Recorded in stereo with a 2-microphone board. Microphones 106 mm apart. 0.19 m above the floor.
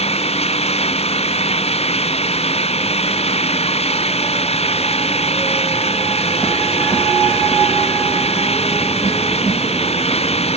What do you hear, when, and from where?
0.0 s an engine running: 75° left (ahead or behind)